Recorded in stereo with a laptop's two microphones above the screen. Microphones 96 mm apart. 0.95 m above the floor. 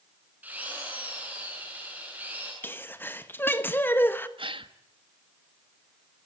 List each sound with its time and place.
0.4 s a drill: 15° right (ahead or behind), 7.5 m
2.6 s a sneeze: 20° left (ahead or behind), 1.4 m
4.4 s a gasp: 65° right (ahead or behind), 1.4 m